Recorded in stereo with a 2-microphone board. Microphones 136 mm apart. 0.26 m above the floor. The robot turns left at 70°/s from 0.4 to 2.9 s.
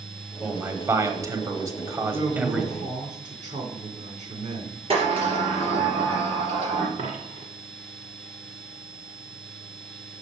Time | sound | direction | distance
0.4 | a man speaking | 5° right (ahead or behind) | 1.0 m
2.1 | a man speaking | 35° right | 3 m
4.9 | a sliding door | 45° right (ahead or behind) | 3.5 m
7.0 | a dropped coin | 65° right (ahead or behind) | 1.5 m